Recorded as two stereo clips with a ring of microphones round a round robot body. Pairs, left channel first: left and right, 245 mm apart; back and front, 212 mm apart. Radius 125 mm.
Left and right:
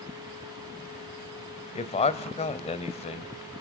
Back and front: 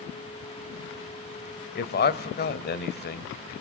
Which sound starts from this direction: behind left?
A man speaking, at 1.8 s.